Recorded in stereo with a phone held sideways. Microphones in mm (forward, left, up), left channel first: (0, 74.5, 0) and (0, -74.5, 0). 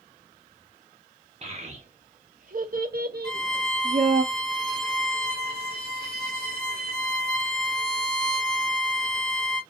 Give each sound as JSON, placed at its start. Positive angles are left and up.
{"t": 1.4, "sound": "a child speaking", "side_deg": -40, "distance_m": 1.4}
{"t": 3.2, "sound": "a violin", "side_deg": 30, "distance_m": 2.0}